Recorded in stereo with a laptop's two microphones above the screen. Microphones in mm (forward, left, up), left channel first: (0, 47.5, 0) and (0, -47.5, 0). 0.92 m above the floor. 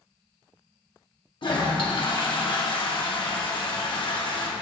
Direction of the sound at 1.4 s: 60° left (ahead or behind).